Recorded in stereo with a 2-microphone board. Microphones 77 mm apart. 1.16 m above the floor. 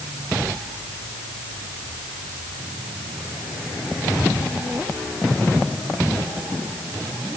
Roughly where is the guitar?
I don't hear a guitar.